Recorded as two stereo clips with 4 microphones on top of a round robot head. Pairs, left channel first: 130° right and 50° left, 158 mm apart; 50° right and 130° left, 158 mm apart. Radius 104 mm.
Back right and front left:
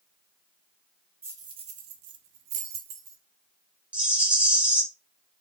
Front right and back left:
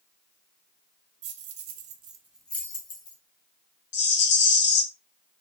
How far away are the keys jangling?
About 0.8 m.